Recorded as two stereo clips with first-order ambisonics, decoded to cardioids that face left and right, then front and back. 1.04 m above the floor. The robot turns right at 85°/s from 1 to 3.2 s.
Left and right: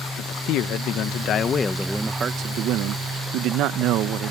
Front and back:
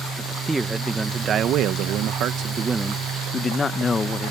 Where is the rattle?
No rattle in this recording.